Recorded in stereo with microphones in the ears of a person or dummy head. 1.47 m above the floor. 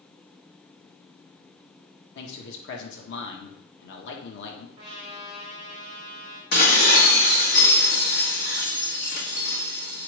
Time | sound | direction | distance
2.1 | a man speaking | 65° left (ahead or behind) | 1.6 m
4.8 | a trumpet | 25° right (ahead or behind) | 2.5 m
6.5 | dishes clattering | 45° left (ahead or behind) | 1.5 m